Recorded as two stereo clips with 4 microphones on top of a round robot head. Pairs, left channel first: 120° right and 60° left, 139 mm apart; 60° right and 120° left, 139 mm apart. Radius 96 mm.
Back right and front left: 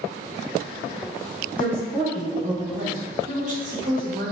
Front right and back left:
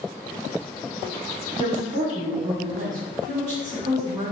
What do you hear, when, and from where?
1.6 s a woman speaking: 135° left, 0.9 m; by 4.3 s 60° left, 1.6 m